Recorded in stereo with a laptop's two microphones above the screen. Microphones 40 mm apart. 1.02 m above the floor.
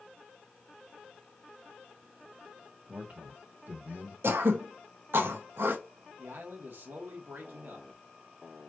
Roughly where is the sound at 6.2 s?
Right.